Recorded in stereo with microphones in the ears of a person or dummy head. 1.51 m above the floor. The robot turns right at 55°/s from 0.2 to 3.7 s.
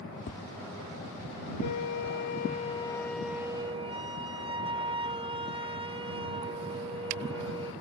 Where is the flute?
90° left; by 7.7 s 150° right.